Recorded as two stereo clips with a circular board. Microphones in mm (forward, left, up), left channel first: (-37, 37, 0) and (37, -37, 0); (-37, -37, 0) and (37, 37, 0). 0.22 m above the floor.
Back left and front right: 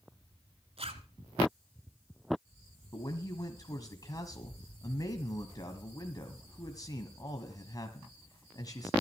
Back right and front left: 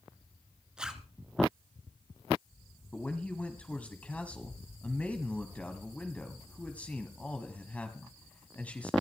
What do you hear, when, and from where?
0.8 s a zipper: 35° right, 1.4 m
2.9 s a man speaking: 155° left, 1.5 m